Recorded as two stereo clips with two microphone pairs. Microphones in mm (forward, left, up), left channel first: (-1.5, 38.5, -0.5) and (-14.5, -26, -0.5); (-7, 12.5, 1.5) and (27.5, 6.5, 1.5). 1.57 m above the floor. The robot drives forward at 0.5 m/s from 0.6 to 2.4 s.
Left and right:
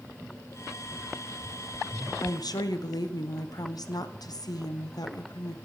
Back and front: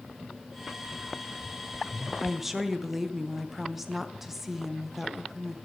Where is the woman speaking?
65° left, 0.9 m; by 5.5 s 70° left, 0.9 m.